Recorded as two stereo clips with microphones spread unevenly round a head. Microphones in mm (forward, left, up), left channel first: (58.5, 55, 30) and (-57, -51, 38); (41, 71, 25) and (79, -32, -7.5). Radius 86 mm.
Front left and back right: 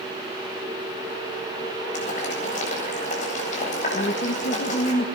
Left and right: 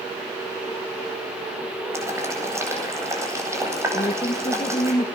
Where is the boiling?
5° right, 8.5 m.